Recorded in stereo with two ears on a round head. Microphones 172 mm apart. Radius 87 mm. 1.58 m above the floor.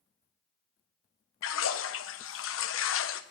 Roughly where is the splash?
Left.